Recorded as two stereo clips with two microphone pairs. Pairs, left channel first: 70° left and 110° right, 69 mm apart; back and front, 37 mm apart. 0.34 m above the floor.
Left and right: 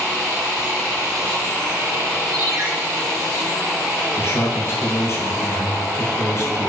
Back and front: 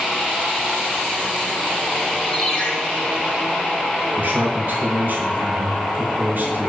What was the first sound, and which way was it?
A ringtone, 110° right.